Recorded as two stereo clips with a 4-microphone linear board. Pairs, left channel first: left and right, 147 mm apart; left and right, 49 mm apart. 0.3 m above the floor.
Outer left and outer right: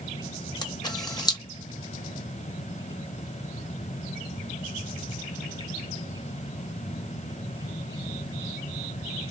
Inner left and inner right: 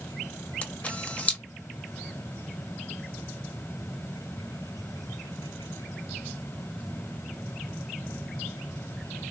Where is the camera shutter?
30° left (ahead or behind), 0.5 m.